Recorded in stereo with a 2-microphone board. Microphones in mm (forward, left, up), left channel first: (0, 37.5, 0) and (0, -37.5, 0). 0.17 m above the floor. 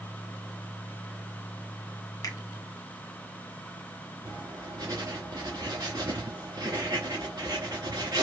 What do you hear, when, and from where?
2.2 s a finger snap: 50° left (ahead or behind), 1.4 m
4.2 s writing: 55° right (ahead or behind), 2.5 m